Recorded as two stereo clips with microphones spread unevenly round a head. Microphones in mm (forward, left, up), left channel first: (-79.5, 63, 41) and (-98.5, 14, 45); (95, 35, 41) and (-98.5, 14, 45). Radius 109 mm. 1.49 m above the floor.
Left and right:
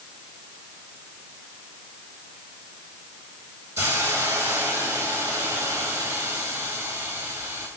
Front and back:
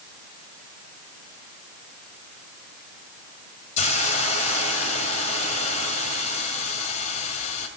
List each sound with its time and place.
3.8 s a hiss: 50° right, 2 m